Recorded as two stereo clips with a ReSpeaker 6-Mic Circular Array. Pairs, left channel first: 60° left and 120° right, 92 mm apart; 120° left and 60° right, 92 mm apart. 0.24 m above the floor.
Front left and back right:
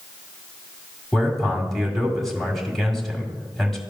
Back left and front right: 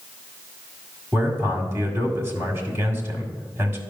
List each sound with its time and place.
1.1 s a man speaking: 30° right, 1.8 m